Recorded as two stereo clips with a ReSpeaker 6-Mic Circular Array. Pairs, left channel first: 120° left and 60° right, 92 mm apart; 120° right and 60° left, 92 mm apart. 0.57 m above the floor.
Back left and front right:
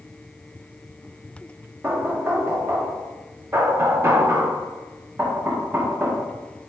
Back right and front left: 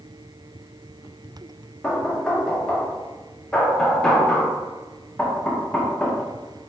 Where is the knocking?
55° right, 0.7 m.